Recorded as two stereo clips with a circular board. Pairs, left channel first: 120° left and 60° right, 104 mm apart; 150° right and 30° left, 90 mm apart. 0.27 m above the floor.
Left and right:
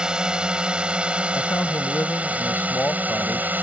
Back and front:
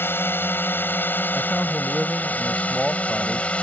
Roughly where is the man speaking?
Behind left.